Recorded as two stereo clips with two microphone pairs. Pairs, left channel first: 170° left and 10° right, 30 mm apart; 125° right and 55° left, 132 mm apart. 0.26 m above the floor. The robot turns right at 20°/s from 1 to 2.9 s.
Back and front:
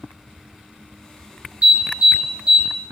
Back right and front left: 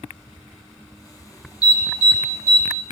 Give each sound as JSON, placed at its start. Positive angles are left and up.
{"t": 1.6, "sound": "an alarm", "azimuth_deg": 25, "distance_m": 3.5}